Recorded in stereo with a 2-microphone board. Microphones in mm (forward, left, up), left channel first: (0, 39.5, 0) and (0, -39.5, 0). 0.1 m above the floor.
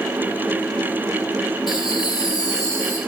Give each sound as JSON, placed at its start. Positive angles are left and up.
{"t": 1.7, "sound": "laughter", "side_deg": 65, "distance_m": 3.5}